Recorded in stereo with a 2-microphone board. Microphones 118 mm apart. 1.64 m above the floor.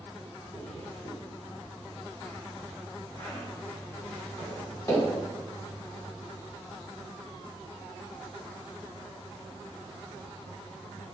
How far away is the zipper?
About 1.9 m.